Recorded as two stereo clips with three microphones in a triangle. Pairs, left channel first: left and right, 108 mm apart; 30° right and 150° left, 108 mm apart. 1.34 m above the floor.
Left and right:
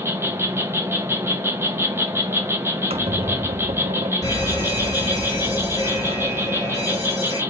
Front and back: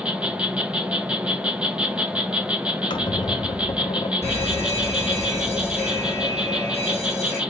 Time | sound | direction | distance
0.0 | an insect | 135° right | 0.8 m
2.9 | a squeak | 70° right | 0.6 m
4.2 | an alarm | 40° left | 2 m